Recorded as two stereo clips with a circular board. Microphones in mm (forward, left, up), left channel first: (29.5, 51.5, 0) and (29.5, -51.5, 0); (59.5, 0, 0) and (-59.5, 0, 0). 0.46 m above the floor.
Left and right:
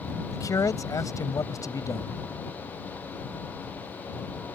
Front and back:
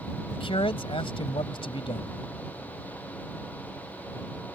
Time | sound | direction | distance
0.3 | a man speaking | 35° left | ?